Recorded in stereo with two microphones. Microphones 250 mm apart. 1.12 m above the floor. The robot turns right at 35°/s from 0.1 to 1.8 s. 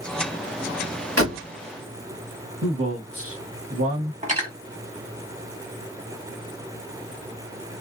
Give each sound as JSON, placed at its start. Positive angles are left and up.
{"t": 1.2, "sound": "a door slam", "side_deg": -70, "distance_m": 1.3}
{"t": 2.6, "sound": "a man speaking", "side_deg": -70, "distance_m": 1.3}
{"t": 4.2, "sound": "cutlery clinking", "side_deg": -30, "distance_m": 1.3}